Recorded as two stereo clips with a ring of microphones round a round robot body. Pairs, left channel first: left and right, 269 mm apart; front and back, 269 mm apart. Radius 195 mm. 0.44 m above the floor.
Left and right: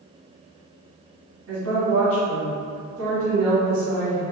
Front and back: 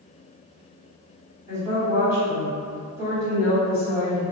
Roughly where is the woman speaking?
Right.